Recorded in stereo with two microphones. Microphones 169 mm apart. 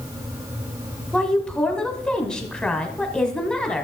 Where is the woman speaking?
5° left (ahead or behind), 1.4 m.